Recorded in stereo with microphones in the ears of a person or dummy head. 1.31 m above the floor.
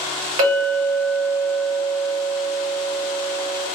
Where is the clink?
40° right (ahead or behind), 1.2 m.